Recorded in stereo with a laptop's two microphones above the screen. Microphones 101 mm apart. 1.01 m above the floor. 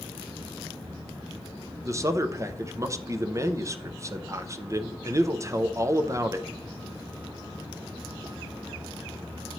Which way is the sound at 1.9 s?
30° right (ahead or behind).